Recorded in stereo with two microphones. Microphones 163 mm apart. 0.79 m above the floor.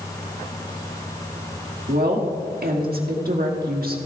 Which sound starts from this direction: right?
A woman speaking, at 1.9 s.